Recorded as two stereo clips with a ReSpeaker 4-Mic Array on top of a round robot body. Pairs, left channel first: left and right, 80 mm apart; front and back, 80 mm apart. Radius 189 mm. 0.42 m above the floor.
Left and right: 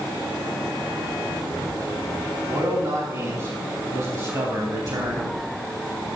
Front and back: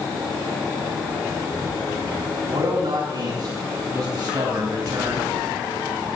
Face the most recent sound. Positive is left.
turn(degrees=-125)